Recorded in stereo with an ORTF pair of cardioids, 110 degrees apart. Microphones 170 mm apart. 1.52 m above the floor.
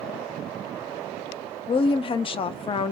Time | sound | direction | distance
1.7 | a woman speaking | 35° left | 0.5 m